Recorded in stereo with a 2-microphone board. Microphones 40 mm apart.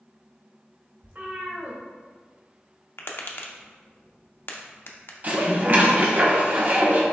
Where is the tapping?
60° left (ahead or behind), 0.5 m.